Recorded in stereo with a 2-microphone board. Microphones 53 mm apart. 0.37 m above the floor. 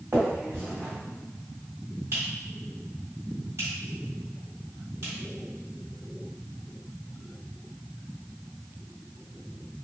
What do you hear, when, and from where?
0.1 s a finger snap: 60° right (ahead or behind), 1.5 m